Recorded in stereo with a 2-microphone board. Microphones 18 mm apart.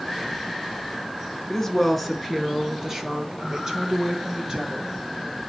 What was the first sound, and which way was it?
A woman speaking, 10° left (ahead or behind).